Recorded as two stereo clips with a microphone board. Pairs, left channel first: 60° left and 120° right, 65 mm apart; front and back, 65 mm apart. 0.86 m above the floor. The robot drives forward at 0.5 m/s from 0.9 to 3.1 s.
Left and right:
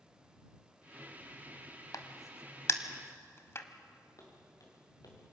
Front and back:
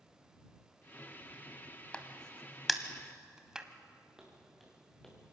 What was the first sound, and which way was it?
A crack, 70° left.